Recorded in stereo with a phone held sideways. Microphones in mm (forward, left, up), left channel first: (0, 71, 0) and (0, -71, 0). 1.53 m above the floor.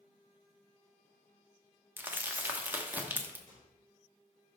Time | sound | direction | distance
2.0 | crumpling | 15° right (ahead or behind) | 1.0 m
3.5 | a microwave | 80° right | 4 m